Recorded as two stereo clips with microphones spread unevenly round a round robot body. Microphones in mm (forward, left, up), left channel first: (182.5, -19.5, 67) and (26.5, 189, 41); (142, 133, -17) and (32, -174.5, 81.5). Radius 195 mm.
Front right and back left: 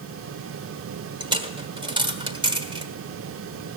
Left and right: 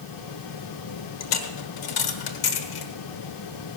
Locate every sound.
1.2 s a dropped coin: 50° left, 1.4 m